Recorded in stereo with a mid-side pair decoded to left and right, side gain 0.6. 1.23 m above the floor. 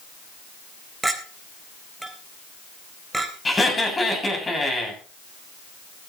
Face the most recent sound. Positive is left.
turn(degrees=20)